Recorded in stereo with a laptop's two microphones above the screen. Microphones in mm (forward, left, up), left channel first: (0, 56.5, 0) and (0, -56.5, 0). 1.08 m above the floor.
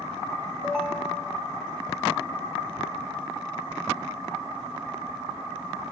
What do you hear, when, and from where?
0.6 s a ringtone: 5° right (ahead or behind), 0.8 m